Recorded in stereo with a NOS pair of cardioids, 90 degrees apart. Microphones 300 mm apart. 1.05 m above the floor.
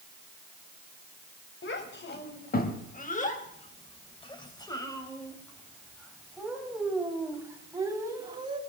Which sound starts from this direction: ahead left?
A child speaking, at 1.6 s.